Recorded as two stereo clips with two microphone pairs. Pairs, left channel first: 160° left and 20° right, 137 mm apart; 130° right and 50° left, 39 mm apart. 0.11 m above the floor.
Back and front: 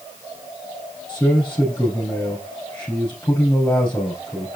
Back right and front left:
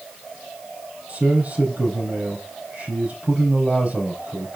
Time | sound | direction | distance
1.1 | a man speaking | 85° left | 3 m